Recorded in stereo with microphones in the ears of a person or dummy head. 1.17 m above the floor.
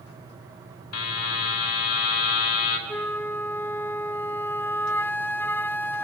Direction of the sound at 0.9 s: 90° left.